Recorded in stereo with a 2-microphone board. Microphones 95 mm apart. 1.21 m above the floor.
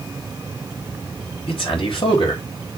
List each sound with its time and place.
1.5 s a man speaking: 70° left (ahead or behind), 3.5 m; by 2.8 s 60° left (ahead or behind), 2.5 m